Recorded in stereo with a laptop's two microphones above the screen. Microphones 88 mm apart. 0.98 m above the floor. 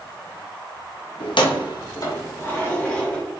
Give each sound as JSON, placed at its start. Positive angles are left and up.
{"t": 1.2, "sound": "keys jangling", "side_deg": 75, "distance_m": 0.6}